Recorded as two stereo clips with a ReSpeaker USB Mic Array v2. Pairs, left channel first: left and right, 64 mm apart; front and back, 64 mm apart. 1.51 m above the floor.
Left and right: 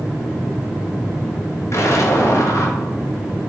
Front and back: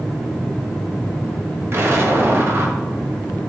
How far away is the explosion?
About 0.7 m.